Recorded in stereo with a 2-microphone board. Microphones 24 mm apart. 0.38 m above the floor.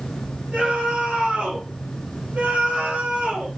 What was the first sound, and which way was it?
A scream, 70° right (ahead or behind).